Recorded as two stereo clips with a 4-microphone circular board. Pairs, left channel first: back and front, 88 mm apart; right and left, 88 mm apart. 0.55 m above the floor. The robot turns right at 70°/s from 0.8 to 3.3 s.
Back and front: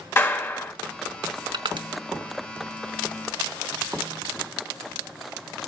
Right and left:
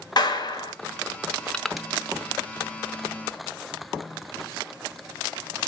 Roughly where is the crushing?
Ahead.